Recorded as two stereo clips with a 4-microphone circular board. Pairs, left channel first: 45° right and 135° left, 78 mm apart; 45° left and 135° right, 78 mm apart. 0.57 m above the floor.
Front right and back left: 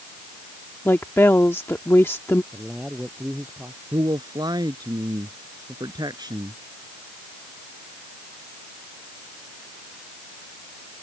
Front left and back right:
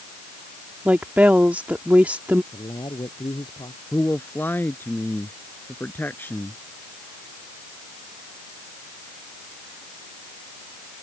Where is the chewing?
I don't hear chewing.